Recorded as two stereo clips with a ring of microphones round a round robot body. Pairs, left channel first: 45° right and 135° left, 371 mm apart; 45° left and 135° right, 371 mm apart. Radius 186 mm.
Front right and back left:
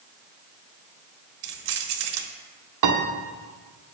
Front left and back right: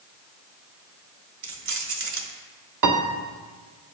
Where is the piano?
Straight behind, 1.2 m.